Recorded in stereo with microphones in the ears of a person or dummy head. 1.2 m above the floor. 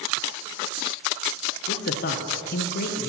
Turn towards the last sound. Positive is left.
turn(degrees=55)  # may be behind; listen again after turning